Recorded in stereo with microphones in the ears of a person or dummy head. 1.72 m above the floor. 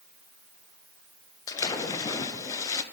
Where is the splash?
25° left (ahead or behind), 0.9 m.